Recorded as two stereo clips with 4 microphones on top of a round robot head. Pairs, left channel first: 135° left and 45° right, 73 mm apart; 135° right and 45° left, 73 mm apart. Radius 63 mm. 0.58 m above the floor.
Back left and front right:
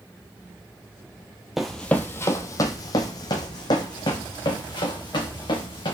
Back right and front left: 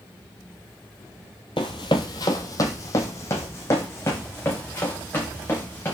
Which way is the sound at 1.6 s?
130° right.